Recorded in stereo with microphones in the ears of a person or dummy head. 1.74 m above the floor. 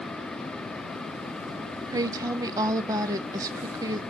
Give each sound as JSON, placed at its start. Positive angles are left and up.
{"t": 1.9, "sound": "a woman speaking", "side_deg": -15, "distance_m": 0.7}